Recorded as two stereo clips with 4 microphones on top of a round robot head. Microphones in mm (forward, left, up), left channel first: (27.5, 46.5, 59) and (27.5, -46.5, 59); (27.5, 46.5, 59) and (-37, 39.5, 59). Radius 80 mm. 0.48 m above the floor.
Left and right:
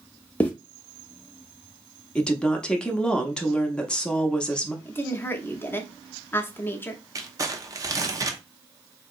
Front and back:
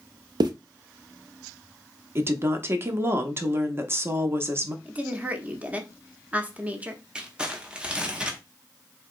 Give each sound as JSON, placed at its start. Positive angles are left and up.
{"t": 0.4, "sound": "a zipper", "azimuth_deg": 170, "distance_m": 0.5}
{"t": 2.1, "sound": "a woman speaking", "azimuth_deg": 165, "distance_m": 0.8}
{"t": 4.8, "sound": "a woman speaking", "azimuth_deg": 135, "distance_m": 0.8}
{"t": 7.2, "sound": "crumpling", "azimuth_deg": -110, "distance_m": 0.7}